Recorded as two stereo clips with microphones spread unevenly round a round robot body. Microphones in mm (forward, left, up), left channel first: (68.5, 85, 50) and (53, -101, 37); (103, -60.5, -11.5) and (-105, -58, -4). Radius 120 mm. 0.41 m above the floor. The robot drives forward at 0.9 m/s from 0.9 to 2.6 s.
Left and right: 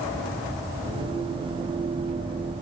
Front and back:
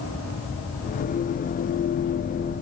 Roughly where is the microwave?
I don't hear a microwave.